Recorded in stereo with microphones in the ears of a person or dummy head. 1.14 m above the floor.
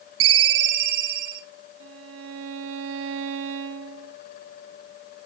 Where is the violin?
70° right (ahead or behind), 0.8 m.